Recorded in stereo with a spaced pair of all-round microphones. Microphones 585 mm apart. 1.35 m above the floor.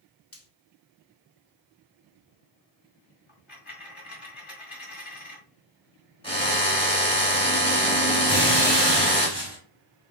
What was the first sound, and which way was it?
Frying, 25° left (ahead or behind).